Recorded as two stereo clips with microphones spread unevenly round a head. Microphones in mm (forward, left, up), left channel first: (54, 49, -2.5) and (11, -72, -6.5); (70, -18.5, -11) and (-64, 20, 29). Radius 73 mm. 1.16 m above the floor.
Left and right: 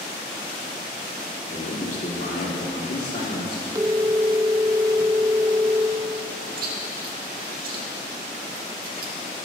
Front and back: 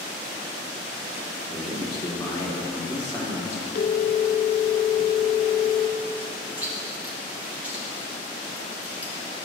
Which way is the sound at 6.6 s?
110° right.